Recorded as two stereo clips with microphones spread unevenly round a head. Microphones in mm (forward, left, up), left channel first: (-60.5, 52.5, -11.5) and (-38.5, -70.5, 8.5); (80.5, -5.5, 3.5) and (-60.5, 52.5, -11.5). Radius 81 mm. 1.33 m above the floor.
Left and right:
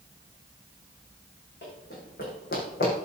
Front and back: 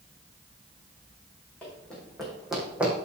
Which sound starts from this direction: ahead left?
Running footsteps, at 1.6 s.